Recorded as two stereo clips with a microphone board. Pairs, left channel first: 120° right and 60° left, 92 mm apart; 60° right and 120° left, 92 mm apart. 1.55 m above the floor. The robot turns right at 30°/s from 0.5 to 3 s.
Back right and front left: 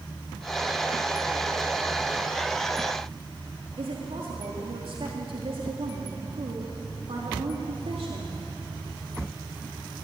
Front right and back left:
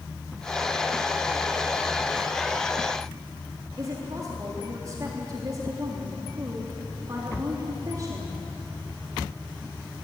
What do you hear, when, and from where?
3.8 s a woman speaking: 70° left, 3.5 m